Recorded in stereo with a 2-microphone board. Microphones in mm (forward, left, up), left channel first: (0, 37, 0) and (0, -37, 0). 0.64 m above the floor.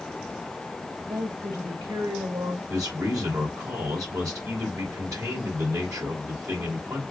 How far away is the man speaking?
About 2.5 m.